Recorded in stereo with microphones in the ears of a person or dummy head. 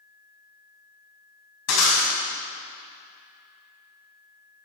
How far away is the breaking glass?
About 5 m.